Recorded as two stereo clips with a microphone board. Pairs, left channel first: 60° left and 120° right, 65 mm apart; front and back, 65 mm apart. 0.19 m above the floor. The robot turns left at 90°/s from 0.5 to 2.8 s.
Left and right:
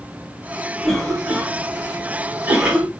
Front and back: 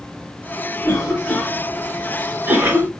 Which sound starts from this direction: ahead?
A cough, at 0.8 s.